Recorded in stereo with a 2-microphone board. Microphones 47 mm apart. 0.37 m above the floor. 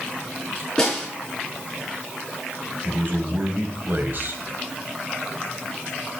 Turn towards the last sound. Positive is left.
turn(degrees=-50)  # may be behind; listen again after turning